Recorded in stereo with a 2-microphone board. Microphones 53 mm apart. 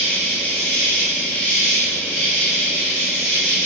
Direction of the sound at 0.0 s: 30° left (ahead or behind).